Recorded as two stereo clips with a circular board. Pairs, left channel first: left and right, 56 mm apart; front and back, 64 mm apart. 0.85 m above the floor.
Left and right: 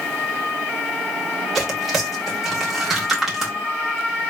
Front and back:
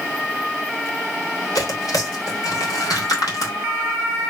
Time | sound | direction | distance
1.6 | tearing paper | 10° right | 1.9 m